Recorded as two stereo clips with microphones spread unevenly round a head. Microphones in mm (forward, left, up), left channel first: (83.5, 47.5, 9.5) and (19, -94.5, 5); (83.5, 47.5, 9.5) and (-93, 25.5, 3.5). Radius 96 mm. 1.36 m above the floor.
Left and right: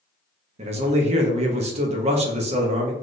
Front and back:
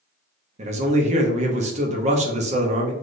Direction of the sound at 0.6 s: 140° right.